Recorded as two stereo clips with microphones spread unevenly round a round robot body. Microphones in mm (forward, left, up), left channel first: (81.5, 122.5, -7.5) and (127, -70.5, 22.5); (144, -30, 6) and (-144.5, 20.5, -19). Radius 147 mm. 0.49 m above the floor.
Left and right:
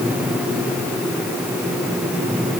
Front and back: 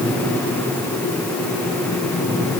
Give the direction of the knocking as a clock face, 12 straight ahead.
No knocking in this recording.